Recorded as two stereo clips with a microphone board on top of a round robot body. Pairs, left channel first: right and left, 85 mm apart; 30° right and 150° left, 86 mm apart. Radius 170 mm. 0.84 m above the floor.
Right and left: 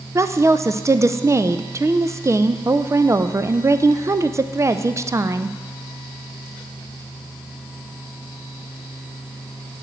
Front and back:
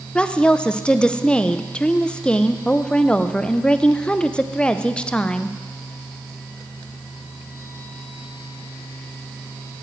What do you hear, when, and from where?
0.1 s a woman speaking: 45° left, 0.6 m